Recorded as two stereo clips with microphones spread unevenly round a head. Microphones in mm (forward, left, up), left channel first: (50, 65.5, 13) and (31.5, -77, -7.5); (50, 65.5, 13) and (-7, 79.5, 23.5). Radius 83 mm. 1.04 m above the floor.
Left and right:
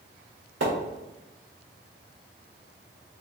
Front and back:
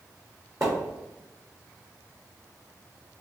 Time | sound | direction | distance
0.6 | a splash | 120° right | 1.5 m